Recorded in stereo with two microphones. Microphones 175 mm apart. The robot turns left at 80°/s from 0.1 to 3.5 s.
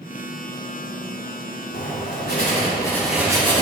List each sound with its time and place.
1.7 s writing: 110° left, 3 m; by 3.6 s 35° right, 3 m